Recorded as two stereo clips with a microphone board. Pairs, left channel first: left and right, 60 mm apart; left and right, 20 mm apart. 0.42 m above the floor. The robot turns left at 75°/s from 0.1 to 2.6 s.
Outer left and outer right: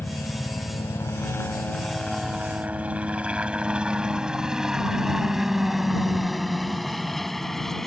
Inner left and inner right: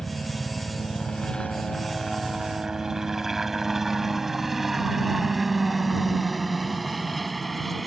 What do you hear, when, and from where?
0.0 s a helicopter: 35° left (ahead or behind); by 7.9 s 5° left (ahead or behind)